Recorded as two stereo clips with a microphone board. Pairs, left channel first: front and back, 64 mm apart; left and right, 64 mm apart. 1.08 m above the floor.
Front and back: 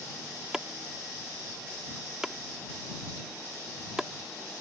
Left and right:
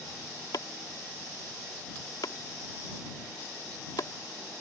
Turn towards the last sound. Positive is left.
turn(degrees=100)